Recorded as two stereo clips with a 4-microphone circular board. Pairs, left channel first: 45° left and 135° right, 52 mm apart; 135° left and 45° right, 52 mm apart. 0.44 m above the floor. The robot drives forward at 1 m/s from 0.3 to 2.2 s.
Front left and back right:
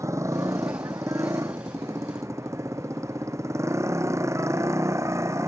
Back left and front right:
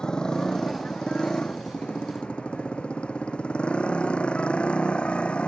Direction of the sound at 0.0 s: 150° right.